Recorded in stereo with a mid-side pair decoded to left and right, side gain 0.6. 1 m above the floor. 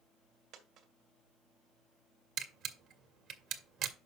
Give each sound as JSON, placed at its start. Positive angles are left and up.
{"t": 0.5, "sound": "a dropped coin", "azimuth_deg": -65, "distance_m": 2.0}
{"t": 2.4, "sound": "a camera shutter", "azimuth_deg": -60, "distance_m": 1.6}